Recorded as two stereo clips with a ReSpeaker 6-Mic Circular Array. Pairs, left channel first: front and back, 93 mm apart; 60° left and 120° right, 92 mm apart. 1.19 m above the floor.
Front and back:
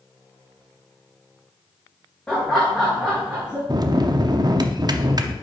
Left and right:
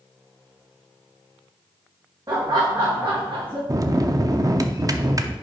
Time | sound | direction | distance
2.3 | laughter | 75° right | 1.3 m
3.7 | a bell | 155° right | 0.5 m